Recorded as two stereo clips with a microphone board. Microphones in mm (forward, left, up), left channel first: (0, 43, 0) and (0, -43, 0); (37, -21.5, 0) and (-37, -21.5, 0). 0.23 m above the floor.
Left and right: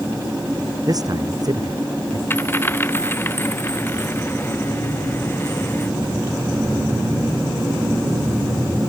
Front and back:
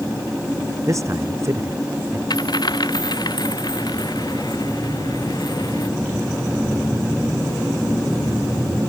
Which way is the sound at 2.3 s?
25° left.